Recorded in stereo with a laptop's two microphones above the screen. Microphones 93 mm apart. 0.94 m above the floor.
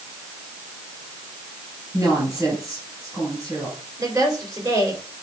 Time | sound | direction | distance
1.9 | a woman speaking | 40° right (ahead or behind) | 5.5 m
4.0 | a woman speaking | 40° right (ahead or behind) | 3.5 m